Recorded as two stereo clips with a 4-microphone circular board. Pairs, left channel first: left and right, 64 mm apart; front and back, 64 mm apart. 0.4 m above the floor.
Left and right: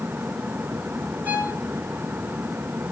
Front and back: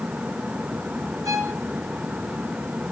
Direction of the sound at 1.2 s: 155° right.